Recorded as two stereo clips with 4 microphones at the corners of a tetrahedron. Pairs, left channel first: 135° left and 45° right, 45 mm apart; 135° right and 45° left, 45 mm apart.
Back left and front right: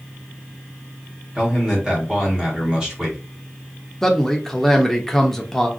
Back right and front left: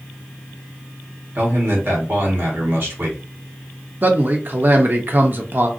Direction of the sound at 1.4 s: 25° left.